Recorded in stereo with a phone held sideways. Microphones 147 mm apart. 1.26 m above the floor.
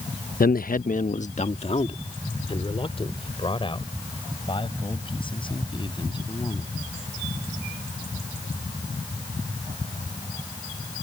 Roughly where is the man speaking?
Left.